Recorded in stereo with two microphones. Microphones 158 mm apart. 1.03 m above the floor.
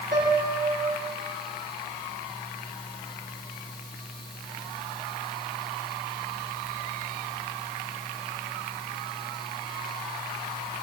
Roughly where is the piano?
Right.